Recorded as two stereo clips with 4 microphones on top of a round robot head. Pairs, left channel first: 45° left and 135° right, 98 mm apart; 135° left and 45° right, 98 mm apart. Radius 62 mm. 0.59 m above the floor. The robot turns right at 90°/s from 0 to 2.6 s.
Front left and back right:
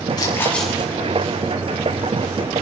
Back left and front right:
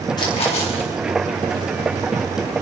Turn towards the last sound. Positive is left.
turn(degrees=-55)